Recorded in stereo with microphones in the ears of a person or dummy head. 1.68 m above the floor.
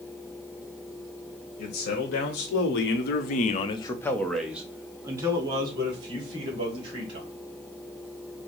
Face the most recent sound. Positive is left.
turn(degrees=-30)  # may be behind; listen again after turning